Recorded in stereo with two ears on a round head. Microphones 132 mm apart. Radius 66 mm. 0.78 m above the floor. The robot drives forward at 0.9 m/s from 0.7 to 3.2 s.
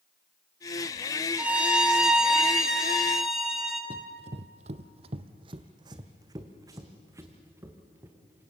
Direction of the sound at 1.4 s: 10° right (ahead or behind).